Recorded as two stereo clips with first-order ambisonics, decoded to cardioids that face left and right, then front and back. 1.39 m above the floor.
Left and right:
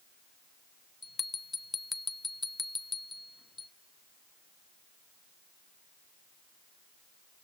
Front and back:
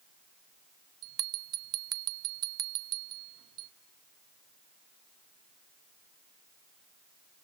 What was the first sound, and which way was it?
A bell, 160° left.